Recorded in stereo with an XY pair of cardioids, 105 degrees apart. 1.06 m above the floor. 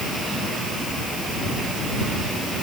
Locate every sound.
Only background noise.